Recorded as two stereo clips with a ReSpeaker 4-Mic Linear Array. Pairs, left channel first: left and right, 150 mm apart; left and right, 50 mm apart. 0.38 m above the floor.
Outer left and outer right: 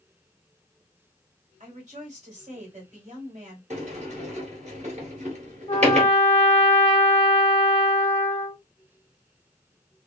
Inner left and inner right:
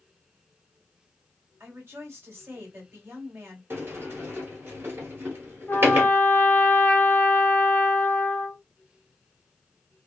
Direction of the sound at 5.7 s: 35° left (ahead or behind).